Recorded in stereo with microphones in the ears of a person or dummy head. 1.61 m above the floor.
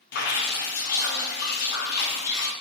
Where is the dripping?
50° left (ahead or behind), 0.5 m.